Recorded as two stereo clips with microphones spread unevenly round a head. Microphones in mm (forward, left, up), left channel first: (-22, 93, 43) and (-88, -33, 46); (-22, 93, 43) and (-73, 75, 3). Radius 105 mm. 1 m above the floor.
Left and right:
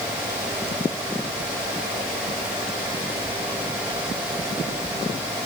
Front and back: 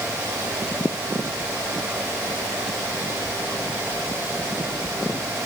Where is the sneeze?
I don't hear a sneeze.